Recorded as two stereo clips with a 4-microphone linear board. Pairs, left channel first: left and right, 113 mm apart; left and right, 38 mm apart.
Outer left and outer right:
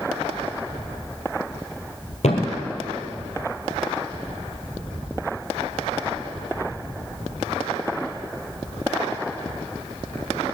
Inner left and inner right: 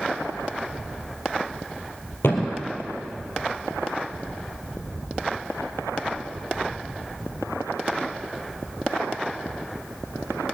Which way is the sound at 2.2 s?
80° left.